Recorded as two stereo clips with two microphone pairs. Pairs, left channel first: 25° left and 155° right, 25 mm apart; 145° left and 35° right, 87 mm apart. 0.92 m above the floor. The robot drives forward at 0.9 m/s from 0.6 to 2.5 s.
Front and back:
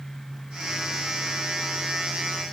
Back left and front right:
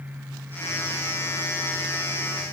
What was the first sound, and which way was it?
Only background noise.